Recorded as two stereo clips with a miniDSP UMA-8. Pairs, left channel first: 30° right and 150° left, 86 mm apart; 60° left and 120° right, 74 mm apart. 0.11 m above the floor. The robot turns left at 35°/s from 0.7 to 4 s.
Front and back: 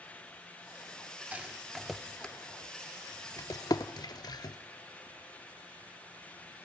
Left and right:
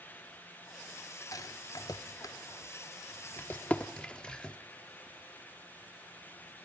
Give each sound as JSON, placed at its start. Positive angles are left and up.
{"t": 1.3, "sound": "a rattle", "azimuth_deg": 80, "distance_m": 0.6}